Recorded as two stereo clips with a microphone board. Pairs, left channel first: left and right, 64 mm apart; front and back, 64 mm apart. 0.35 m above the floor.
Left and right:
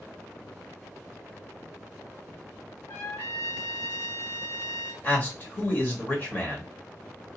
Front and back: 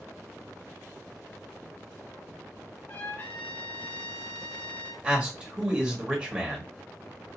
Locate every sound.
2.9 s a trumpet: 45° left, 2 m
5.0 s a man speaking: 120° left, 1.3 m